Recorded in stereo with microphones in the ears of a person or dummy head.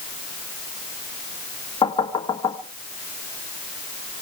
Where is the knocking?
20° left (ahead or behind), 1.6 m.